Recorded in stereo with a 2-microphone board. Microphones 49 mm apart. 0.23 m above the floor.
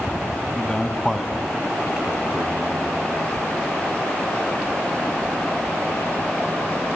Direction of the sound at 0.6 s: 25° left (ahead or behind).